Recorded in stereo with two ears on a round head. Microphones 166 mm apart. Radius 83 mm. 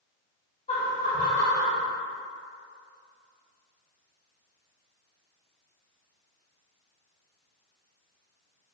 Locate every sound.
0.7 s laughter: 35° left (ahead or behind), 1.7 m; by 1.8 s 20° left (ahead or behind), 1.7 m